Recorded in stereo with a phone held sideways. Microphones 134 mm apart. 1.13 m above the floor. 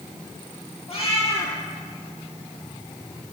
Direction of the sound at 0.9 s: 50° left (ahead or behind).